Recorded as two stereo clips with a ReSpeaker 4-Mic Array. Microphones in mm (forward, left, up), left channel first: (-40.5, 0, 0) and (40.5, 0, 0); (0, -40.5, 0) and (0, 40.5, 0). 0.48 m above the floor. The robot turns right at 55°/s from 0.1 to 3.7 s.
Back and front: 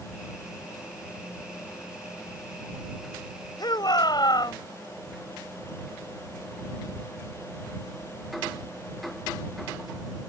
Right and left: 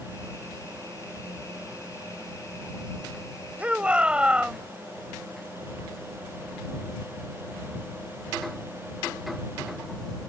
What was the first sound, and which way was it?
A shout, 160° left.